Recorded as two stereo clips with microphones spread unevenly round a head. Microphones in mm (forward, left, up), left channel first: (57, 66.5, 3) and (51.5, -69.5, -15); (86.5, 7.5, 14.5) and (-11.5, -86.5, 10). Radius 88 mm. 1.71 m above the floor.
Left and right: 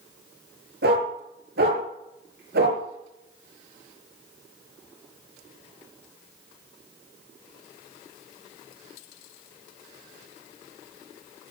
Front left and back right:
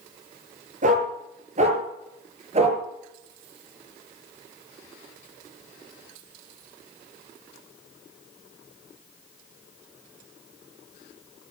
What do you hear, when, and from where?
0.8 s a dog barking: 110° right, 7.5 m; by 2.8 s 95° right, 7.5 m